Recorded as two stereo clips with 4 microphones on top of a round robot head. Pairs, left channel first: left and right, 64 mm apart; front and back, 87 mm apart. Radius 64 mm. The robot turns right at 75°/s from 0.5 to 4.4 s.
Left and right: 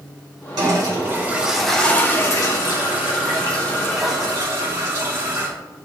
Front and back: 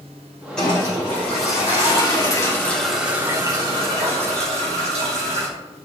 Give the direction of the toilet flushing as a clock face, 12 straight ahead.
3 o'clock.